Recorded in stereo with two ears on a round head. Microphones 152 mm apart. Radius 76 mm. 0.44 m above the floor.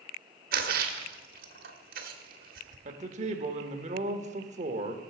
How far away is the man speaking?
About 1.0 m.